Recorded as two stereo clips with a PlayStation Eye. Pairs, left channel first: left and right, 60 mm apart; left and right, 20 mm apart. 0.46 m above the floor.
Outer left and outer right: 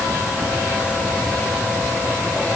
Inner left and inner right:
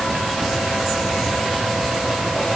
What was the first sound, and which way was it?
Only background noise.